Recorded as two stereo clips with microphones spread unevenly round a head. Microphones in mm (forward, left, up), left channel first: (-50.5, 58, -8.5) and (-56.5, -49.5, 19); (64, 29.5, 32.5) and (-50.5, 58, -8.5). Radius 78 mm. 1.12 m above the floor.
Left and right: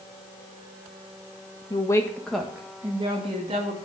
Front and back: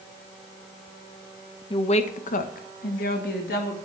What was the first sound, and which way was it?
A woman speaking, 35° left.